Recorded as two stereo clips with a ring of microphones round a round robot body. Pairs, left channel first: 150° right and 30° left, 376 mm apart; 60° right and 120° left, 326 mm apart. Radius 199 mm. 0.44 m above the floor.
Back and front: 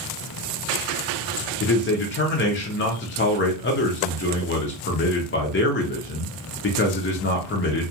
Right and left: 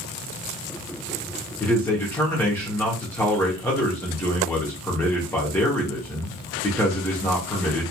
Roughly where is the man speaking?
Behind right.